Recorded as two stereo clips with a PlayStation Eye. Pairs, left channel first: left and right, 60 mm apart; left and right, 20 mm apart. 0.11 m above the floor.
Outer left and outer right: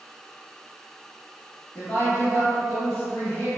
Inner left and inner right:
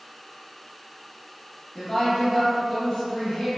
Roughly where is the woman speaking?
Left.